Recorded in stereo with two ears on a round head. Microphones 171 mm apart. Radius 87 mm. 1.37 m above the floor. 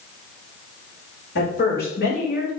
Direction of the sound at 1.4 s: 60° left (ahead or behind).